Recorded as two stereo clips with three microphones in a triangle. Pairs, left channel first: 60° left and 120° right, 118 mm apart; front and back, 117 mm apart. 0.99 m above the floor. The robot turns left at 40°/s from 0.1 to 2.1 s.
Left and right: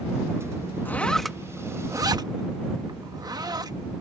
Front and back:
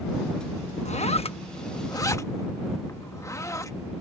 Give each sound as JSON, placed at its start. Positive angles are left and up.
{"t": 0.8, "sound": "a zipper", "azimuth_deg": -15}